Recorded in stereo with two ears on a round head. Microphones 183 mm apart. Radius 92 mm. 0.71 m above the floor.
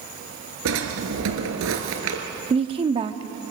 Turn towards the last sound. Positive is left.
turn(degrees=-25)  # may be behind; listen again after turning